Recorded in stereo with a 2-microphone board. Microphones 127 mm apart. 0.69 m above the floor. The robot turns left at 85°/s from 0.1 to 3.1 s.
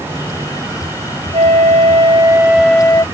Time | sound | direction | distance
1.3 | a flute | 70° right | ?